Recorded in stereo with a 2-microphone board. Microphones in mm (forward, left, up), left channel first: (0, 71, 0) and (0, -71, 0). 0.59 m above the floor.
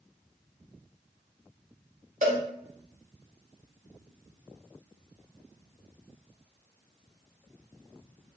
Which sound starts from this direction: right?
A cowbell, at 2.2 s.